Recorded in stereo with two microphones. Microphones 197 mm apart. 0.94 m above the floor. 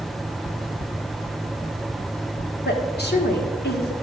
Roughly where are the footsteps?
Left.